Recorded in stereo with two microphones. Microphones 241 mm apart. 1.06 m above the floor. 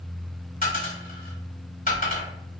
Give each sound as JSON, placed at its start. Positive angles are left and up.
{"t": 0.6, "sound": "a dropped coin", "side_deg": 35, "distance_m": 1.3}